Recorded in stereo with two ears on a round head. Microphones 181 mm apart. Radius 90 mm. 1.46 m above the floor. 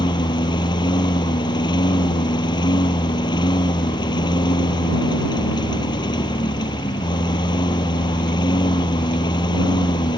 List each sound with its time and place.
0.0 s a lawn mower: 20° left (ahead or behind)